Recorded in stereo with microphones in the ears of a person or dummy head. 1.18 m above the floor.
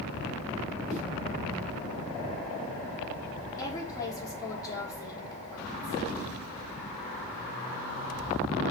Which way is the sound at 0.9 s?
5° left (ahead or behind).